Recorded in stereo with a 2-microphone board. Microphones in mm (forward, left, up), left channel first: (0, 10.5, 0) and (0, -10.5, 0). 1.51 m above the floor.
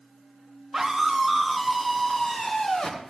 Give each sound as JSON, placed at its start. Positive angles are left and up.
{"t": 0.7, "sound": "a scream", "side_deg": -20, "distance_m": 3.0}